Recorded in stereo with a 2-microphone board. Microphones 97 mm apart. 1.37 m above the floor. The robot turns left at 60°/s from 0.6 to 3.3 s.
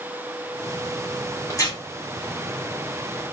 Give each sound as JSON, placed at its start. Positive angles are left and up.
{"t": 1.5, "sound": "tearing paper", "side_deg": 30, "distance_m": 1.0}